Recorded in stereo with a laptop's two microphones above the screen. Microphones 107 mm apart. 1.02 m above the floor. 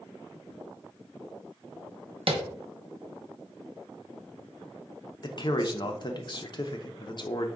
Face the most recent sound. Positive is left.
turn(degrees=45)  # may be behind; listen again after turning